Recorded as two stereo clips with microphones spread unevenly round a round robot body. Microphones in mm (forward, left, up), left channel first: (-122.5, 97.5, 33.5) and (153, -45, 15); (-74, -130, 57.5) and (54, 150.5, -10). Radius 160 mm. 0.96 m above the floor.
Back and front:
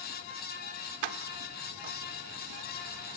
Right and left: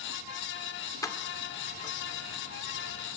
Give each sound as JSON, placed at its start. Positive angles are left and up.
{"t": 1.0, "sound": "keys jangling", "azimuth_deg": -35, "distance_m": 1.8}